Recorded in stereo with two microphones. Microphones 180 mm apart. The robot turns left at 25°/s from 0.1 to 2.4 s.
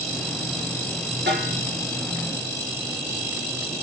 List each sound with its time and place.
1.3 s a snare drum: 80° right, 6.5 m; by 1.6 s 75° right (ahead or behind), 6.5 m